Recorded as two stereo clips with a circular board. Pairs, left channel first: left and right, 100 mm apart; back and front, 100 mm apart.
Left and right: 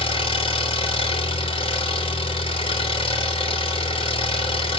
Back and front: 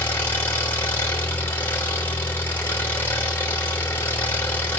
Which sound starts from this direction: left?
An engine running, at 0.0 s.